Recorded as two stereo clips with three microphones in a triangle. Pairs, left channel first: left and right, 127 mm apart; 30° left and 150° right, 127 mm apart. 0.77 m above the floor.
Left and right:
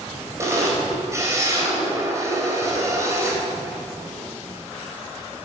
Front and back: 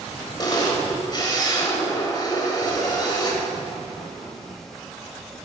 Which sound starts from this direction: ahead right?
A camera shutter, at 0.4 s.